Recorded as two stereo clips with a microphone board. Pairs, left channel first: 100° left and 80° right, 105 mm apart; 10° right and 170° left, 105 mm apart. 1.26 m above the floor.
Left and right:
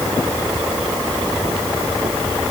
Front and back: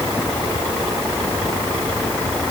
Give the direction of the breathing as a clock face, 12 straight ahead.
I don't hear breathing.